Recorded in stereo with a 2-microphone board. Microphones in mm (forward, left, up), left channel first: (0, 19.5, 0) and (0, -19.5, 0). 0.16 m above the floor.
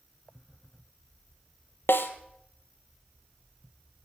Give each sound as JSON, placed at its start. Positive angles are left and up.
{"t": 1.9, "sound": "a snare drum", "side_deg": 80, "distance_m": 1.3}